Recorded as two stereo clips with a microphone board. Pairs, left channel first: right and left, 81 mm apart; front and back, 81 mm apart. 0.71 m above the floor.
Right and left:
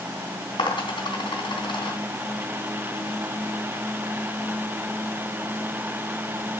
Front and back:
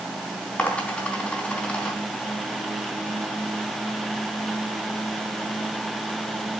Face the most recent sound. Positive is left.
turn(degrees=-75)